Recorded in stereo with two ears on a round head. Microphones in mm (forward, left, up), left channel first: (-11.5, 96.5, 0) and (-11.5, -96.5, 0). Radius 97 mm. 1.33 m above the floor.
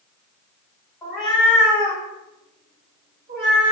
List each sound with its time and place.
1.0 s a cat meowing: 5° left (ahead or behind), 1.1 m; by 3.7 s 45° right (ahead or behind), 1.5 m